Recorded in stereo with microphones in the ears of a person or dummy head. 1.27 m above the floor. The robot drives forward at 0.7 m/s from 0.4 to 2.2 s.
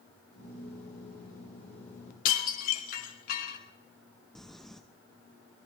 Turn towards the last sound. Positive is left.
turn(degrees=0)  # may be behind; listen again after turning